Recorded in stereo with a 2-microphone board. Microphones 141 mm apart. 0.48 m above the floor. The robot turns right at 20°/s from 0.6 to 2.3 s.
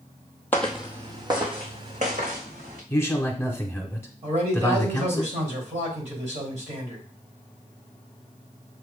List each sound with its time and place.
0.5 s footsteps: 15° left (ahead or behind), 0.9 m; by 2.8 s 70° right (ahead or behind), 3 m
2.9 s a man speaking: 15° left (ahead or behind), 1.0 m
4.2 s a man speaking: 55° right (ahead or behind), 2.5 m